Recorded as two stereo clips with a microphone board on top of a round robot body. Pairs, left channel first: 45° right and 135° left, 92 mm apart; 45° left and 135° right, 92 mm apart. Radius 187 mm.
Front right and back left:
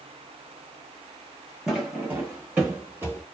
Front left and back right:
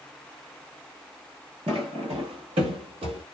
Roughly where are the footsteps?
Behind right.